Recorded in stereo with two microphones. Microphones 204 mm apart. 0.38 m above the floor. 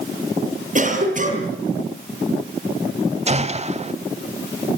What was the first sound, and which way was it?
A cough, 40° right (ahead or behind).